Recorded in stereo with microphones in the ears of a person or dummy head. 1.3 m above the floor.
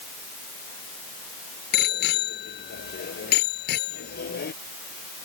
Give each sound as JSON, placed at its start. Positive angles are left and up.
{"t": 1.7, "sound": "a bicycle bell", "side_deg": 65}